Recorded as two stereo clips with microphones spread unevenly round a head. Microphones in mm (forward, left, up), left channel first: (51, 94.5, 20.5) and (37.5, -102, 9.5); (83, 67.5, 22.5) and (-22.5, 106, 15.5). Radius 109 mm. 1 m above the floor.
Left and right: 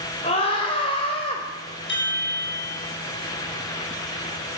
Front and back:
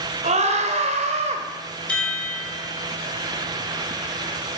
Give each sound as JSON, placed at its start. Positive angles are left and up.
{"t": 0.2, "sound": "a scream", "azimuth_deg": 150, "distance_m": 4.0}
{"t": 1.9, "sound": "a chime", "azimuth_deg": 60, "distance_m": 9.5}